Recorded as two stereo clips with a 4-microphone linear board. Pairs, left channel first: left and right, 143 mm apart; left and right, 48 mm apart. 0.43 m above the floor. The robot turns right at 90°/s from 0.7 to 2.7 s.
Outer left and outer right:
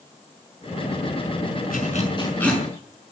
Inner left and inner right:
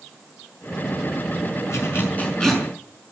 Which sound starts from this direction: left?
A zipper, at 1.7 s.